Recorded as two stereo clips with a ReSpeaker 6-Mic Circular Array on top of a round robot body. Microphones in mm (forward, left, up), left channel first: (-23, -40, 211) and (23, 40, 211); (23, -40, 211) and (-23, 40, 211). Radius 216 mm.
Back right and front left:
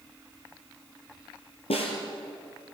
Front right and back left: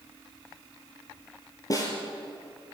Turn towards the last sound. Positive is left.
turn(degrees=-110)